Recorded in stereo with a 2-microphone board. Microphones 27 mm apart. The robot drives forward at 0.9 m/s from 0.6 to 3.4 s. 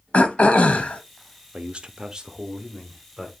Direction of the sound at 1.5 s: 40° right (ahead or behind).